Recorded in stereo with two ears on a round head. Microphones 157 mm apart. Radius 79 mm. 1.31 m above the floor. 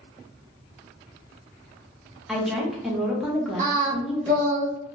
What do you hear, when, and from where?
2.3 s a woman speaking: centre (ahead or behind), 1.0 m
3.6 s singing: 40° right (ahead or behind), 0.9 m